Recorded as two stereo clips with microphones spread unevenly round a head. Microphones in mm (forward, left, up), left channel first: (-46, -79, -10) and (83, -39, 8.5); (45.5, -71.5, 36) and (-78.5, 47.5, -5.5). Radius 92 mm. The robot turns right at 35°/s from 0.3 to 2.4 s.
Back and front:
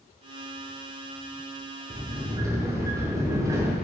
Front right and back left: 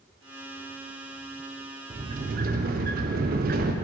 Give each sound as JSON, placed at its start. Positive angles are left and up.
{"t": 1.9, "sound": "a sliding door", "azimuth_deg": 75, "distance_m": 0.6}